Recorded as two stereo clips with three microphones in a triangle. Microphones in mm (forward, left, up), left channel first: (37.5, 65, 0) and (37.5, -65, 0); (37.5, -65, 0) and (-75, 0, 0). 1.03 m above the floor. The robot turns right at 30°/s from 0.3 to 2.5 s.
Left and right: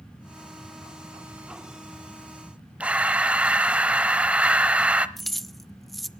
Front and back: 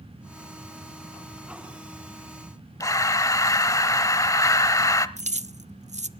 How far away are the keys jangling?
About 0.5 m.